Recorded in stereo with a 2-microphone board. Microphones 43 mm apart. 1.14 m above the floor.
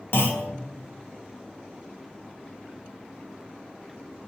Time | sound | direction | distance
0.1 | a clunk | 65° left (ahead or behind) | 0.6 m